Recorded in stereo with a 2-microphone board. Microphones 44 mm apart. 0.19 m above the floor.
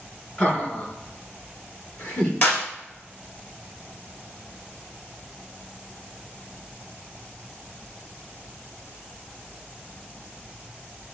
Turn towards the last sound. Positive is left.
turn(degrees=45)  # may be behind; listen again after turning